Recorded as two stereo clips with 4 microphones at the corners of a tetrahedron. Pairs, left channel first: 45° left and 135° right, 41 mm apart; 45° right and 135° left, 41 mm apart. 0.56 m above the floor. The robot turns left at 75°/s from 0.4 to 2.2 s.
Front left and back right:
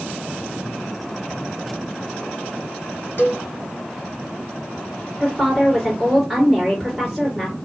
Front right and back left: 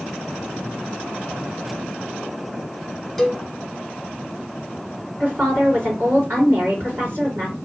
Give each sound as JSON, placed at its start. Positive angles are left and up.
{"t": 3.2, "sound": "a cowbell", "azimuth_deg": 45, "distance_m": 0.8}
{"t": 5.2, "sound": "a woman speaking", "azimuth_deg": 135, "distance_m": 2.0}